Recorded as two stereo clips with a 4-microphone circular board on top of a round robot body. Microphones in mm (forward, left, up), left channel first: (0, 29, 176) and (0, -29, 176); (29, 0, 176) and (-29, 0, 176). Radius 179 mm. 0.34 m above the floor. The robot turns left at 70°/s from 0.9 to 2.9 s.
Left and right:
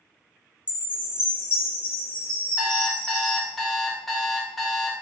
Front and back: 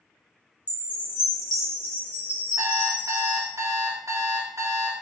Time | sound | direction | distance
0.7 | a chime | 135° left | 1.5 m
2.6 | an alarm clock | 160° right | 0.9 m